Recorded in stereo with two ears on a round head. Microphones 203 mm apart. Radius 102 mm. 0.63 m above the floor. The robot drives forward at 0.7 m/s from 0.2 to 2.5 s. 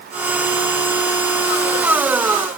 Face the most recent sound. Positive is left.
No sound to turn to.